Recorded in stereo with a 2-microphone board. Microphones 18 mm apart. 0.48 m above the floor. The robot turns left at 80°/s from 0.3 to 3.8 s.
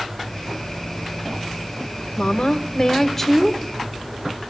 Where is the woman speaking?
95° left, 1.2 m; by 3.6 s 20° right, 1.2 m.